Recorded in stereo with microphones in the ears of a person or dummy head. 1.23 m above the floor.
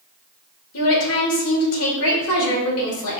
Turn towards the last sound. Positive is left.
turn(degrees=70)  # may be behind; listen again after turning